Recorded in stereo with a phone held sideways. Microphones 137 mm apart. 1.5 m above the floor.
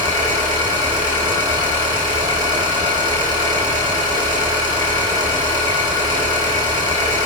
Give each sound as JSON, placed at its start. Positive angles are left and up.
{"t": 0.0, "sound": "an engine running", "side_deg": -35, "distance_m": 5.0}